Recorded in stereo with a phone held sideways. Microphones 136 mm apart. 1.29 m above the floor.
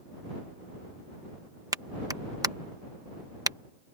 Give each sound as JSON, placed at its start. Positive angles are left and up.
{"t": 1.7, "sound": "a clap", "side_deg": -25}